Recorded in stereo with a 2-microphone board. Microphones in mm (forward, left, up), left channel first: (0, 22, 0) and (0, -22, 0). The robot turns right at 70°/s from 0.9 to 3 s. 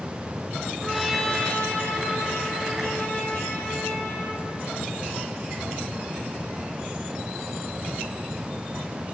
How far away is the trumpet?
About 4 m.